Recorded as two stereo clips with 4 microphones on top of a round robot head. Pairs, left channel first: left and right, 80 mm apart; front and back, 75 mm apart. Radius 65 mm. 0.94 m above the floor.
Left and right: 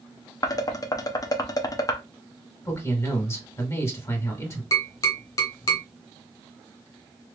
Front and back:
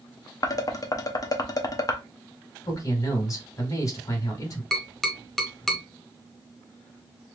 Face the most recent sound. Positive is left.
turn(degrees=85)